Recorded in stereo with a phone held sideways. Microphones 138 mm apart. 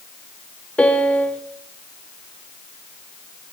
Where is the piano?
10° left (ahead or behind), 1.0 m.